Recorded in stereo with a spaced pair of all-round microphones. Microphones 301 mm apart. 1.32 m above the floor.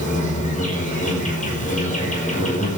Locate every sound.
0.0 s an insect: 25° left (ahead or behind), 5.5 m